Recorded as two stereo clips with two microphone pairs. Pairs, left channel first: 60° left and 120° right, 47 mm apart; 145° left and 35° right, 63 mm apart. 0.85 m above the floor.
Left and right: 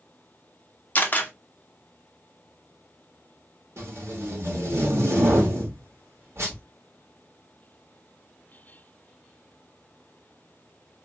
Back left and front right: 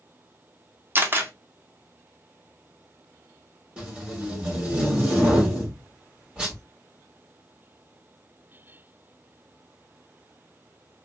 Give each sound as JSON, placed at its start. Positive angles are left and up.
{"t": 0.9, "sound": "a camera shutter", "azimuth_deg": 10, "distance_m": 0.9}
{"t": 3.8, "sound": "tape being pulled", "azimuth_deg": -110, "distance_m": 1.8}